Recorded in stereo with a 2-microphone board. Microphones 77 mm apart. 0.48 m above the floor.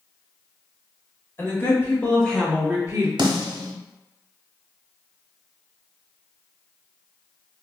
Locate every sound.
1.4 s a woman speaking: 35° left (ahead or behind), 1.6 m; by 3.1 s 35° right (ahead or behind), 0.9 m
3.2 s a snare drum: 85° right, 0.7 m